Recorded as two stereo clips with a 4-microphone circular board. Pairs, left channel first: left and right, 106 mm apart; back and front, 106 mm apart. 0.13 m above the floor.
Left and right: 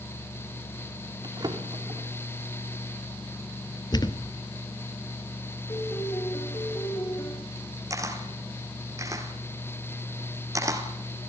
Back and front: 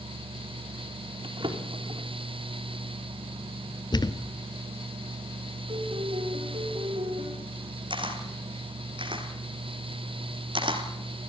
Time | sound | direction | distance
1.2 | a drawer | 40° right | 4.5 m
3.9 | a thud | 135° left | 1.1 m
5.7 | a piano | 35° left | 5 m
7.9 | a camera shutter | 35° right | 3 m